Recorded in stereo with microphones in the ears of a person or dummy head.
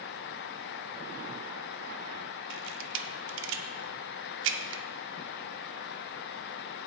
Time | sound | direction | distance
2.5 | a camera shutter | 65° right (ahead or behind) | 0.9 m